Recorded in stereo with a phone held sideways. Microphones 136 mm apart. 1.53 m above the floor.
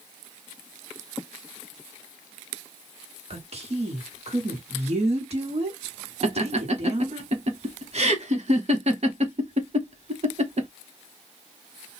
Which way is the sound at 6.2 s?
50° right (ahead or behind).